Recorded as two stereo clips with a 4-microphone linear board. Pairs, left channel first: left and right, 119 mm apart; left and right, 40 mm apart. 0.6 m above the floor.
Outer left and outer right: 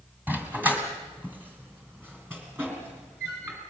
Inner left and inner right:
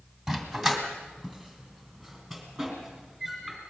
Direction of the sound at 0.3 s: 15° right (ahead or behind).